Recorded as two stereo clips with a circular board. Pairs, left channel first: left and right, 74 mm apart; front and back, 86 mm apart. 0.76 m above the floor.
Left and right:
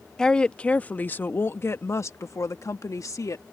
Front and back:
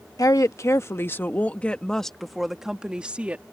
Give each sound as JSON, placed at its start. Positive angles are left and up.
{"t": 0.2, "sound": "a woman speaking", "azimuth_deg": 15}